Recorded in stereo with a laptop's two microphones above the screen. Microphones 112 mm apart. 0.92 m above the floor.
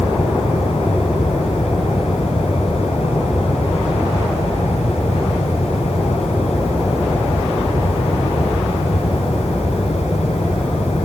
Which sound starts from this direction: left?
A fan, at 0.0 s.